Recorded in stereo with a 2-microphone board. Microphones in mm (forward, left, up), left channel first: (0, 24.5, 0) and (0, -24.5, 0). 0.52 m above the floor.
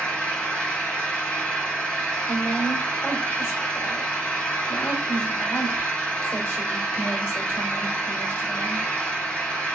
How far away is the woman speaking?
About 1.7 m.